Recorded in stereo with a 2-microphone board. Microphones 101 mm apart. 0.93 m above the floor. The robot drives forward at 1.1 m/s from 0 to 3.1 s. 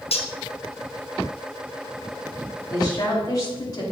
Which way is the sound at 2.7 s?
40° left (ahead or behind).